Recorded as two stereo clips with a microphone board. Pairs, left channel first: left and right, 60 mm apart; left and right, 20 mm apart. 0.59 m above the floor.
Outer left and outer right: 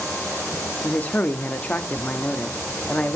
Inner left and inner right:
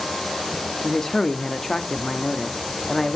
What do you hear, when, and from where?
0.8 s a man speaking: 25° left (ahead or behind), 0.6 m